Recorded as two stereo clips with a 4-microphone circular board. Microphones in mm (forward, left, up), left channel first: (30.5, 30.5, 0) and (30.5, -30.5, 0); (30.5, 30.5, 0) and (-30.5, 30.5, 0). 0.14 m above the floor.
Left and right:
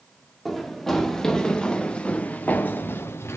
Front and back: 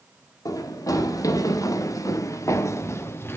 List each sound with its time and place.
0.5 s running footsteps: straight ahead, 2 m; by 3.4 s 50° left, 1.1 m